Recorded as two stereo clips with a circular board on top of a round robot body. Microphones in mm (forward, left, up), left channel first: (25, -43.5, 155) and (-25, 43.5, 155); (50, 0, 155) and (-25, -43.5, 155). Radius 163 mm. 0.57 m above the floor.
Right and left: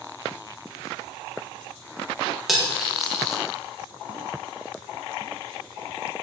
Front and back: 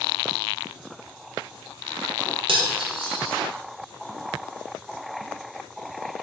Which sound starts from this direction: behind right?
Cutlery clinking, at 2.5 s.